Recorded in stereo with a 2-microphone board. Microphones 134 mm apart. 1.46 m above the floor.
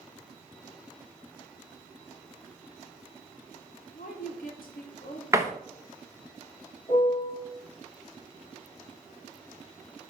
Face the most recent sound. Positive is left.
turn(degrees=40)  # may be behind; listen again after turning